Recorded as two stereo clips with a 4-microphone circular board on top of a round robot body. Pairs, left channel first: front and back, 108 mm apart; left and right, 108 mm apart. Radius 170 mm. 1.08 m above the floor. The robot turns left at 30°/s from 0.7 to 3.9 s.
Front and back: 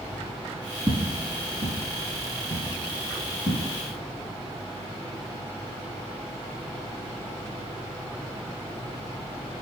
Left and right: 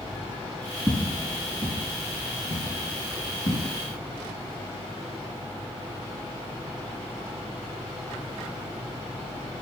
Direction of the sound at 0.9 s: 140° right.